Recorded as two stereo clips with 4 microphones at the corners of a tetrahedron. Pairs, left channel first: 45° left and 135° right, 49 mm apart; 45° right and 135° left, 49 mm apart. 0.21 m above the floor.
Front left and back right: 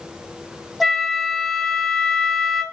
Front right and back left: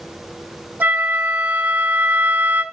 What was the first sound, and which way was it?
A flute, 135° left.